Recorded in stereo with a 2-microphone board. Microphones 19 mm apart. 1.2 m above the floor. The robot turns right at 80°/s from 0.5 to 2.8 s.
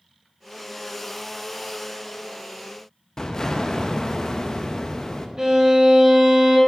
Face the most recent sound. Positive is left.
turn(degrees=-35)  # may be behind; listen again after turning